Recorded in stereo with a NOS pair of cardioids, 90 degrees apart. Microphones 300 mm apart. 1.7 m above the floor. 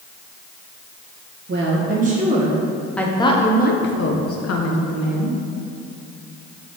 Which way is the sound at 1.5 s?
40° right.